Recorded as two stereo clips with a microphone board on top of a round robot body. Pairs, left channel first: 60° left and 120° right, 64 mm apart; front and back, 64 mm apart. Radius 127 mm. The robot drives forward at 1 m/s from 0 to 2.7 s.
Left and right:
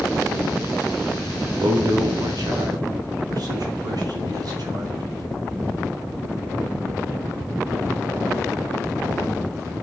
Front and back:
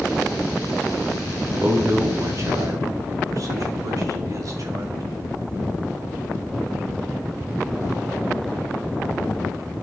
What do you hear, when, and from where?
1.6 s a man speaking: 120° right, 1.5 m; by 5.2 s 145° right, 2.5 m